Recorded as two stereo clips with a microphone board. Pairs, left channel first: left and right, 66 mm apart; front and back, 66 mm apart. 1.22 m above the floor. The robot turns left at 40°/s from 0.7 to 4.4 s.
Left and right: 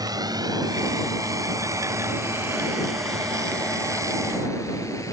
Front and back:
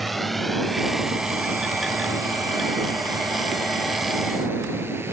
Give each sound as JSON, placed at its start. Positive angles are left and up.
{"t": 0.0, "sound": "a drone", "azimuth_deg": -90}